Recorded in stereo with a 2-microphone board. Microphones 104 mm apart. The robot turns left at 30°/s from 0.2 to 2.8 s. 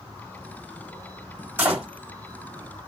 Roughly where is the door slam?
Centre.